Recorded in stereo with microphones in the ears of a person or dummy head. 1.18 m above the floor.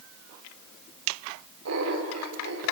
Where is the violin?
No violin in this recording.